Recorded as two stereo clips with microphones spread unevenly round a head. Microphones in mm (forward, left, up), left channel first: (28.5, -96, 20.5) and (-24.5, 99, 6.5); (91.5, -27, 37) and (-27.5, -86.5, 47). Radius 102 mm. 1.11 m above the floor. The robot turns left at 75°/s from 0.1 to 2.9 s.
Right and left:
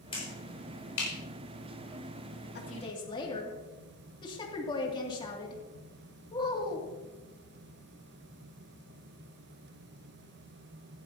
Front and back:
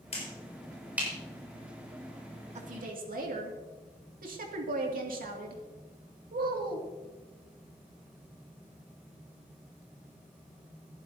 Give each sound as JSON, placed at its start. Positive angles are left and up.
{"t": 0.1, "sound": "a finger snap", "azimuth_deg": -10, "distance_m": 6.0}
{"t": 2.5, "sound": "a woman speaking", "azimuth_deg": -120, "distance_m": 2.5}